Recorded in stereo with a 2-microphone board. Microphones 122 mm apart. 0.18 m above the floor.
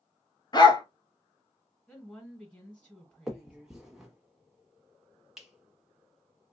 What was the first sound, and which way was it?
A dog barking, 35° left (ahead or behind).